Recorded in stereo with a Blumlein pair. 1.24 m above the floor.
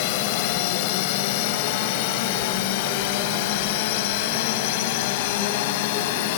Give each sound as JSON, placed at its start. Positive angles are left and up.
{"t": 0.0, "sound": "a drone", "azimuth_deg": 45}